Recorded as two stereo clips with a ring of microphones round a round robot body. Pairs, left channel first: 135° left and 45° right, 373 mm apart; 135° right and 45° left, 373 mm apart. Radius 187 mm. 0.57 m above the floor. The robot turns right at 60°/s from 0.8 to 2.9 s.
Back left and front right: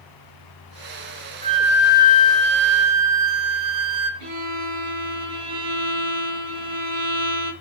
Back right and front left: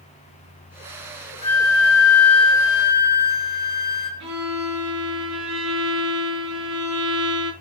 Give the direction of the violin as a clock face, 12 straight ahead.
12 o'clock.